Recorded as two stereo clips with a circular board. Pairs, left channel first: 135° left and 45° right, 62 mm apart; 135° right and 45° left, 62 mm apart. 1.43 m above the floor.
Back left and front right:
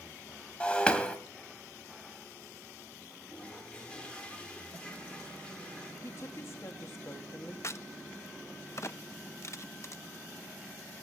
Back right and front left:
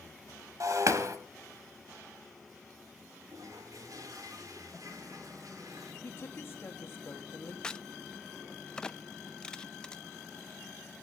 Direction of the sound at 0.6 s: 65° left.